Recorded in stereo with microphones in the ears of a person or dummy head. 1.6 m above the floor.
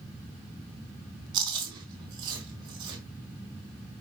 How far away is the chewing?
About 4 m.